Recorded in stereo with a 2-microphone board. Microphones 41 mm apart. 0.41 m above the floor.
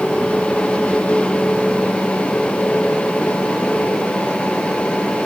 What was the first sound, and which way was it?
Only background noise.